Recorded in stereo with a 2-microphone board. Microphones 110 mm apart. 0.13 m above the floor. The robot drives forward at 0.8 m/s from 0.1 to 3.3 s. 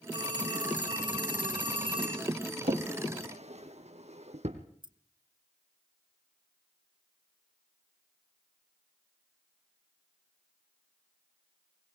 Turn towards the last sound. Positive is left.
turn(degrees=-45)  # may be behind; listen again after turning